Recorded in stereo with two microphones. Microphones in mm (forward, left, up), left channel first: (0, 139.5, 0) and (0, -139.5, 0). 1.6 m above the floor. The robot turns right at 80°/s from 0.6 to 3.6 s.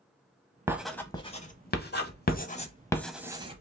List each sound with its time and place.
0.7 s writing: 10° right (ahead or behind), 0.7 m; by 3.6 s 25° right (ahead or behind), 0.7 m